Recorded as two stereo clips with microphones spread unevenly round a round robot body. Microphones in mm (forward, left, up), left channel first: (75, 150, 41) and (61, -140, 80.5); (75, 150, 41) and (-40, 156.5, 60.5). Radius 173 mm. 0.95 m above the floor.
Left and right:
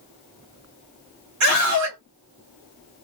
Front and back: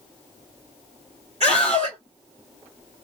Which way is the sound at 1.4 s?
130° right.